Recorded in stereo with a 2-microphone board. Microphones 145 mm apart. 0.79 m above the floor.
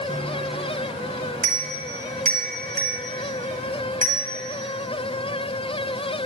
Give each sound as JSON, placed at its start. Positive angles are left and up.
{"t": 0.1, "sound": "a bicycle bell", "side_deg": -75, "distance_m": 3.5}